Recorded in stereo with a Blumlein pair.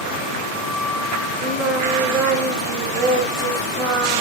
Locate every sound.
1.4 s singing: 10° right, 5 m